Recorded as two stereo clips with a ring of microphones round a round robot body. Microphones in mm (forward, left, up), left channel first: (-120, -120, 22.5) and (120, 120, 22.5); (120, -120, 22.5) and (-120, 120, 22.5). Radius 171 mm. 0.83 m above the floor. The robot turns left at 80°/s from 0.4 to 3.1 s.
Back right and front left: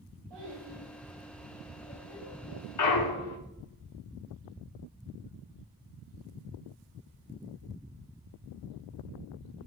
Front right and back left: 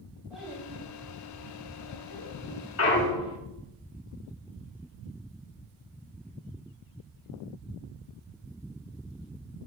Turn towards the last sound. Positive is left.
turn(degrees=-120)